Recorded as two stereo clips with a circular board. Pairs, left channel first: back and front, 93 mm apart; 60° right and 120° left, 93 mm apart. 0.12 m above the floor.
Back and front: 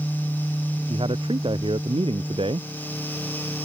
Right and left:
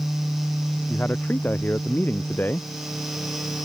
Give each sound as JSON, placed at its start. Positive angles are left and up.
{"t": 0.9, "sound": "a man speaking", "azimuth_deg": 10}